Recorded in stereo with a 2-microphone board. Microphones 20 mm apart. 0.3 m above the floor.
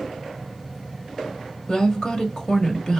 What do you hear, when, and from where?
1.7 s a woman speaking: 40° left (ahead or behind), 1.3 m